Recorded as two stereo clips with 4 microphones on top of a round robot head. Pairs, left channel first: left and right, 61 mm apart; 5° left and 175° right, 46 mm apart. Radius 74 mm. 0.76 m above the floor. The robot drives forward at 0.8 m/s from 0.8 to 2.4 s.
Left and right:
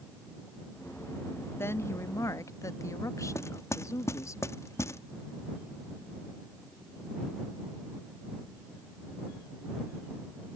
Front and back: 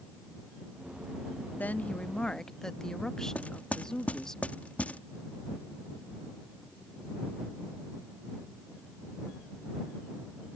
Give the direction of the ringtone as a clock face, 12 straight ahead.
No ringtone in this recording.